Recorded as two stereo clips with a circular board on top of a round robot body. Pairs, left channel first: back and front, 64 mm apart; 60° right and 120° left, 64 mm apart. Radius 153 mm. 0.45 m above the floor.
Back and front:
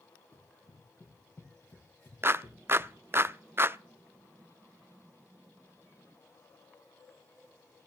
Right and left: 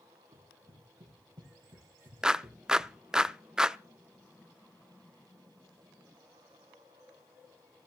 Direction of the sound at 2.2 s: 45° left.